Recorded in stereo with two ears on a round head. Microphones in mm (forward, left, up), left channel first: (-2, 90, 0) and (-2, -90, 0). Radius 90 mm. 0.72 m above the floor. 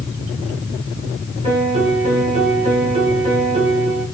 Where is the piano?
35° right (ahead or behind), 2 m.